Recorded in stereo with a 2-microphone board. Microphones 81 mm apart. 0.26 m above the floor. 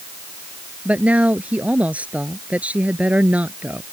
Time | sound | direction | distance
0.8 | a woman speaking | 15° right (ahead or behind) | ?